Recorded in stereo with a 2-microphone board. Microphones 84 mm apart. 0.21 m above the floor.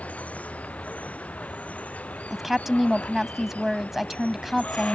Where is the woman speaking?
Centre (ahead or behind).